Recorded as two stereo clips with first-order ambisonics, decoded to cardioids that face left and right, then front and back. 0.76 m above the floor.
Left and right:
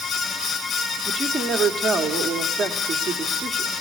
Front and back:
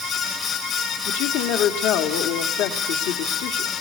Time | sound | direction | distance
1.1 | a woman speaking | 10° right | 1.2 m